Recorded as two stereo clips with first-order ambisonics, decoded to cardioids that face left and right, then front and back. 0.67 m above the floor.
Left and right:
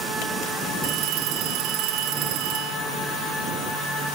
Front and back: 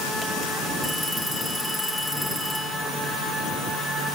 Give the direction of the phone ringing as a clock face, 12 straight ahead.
3 o'clock.